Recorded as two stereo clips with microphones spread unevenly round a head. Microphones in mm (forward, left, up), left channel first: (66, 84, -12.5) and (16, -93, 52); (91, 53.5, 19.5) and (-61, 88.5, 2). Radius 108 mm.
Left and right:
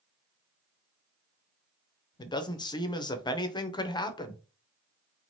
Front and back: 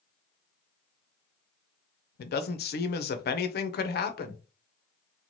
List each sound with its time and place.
2.2 s a man speaking: 10° left, 0.6 m